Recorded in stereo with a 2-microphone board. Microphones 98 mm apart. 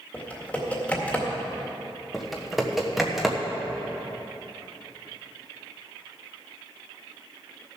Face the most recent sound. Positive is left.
turn(degrees=0)  # may be behind; listen again after turning